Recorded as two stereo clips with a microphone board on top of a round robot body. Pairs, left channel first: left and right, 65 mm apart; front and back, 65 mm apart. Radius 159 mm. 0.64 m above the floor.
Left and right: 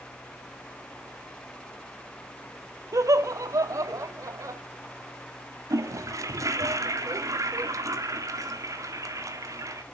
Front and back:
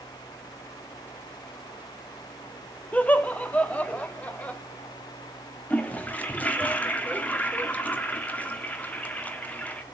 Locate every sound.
2.9 s laughter: 65° right, 1.8 m
5.7 s a toilet flushing: 65° right, 1.9 m